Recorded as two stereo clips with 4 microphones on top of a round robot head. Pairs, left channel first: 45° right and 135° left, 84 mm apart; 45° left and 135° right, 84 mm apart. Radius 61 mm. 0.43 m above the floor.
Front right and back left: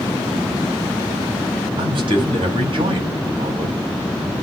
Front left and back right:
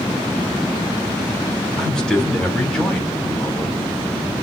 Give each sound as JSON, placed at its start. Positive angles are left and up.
{"t": 1.8, "sound": "a man speaking", "azimuth_deg": 125, "distance_m": 3.0}